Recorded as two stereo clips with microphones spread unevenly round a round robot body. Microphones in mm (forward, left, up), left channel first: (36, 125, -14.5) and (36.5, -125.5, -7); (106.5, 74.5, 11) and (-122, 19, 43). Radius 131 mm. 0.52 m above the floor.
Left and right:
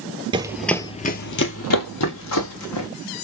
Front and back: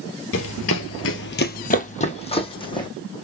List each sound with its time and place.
0.3 s running footsteps: 25° right, 0.7 m; by 2.9 s 85° left, 1.9 m